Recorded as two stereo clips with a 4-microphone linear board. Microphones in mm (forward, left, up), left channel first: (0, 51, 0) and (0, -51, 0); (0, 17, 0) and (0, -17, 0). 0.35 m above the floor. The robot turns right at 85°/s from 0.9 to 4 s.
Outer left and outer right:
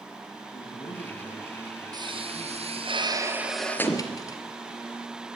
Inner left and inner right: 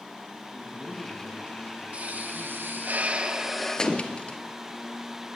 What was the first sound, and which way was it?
A man speaking, 65° left.